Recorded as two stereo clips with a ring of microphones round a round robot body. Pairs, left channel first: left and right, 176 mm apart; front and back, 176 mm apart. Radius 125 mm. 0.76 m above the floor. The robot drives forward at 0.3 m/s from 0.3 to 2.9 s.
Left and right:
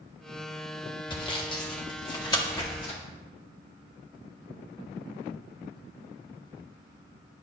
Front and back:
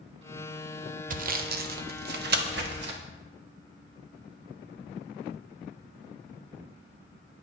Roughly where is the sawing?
Behind left.